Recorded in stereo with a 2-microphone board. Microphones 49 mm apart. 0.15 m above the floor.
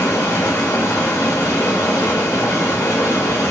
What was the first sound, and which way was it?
Running water, 70° left (ahead or behind).